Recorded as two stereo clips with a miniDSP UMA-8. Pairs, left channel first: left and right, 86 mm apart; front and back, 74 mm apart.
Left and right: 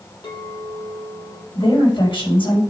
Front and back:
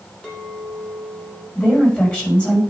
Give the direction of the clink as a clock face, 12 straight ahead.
9 o'clock.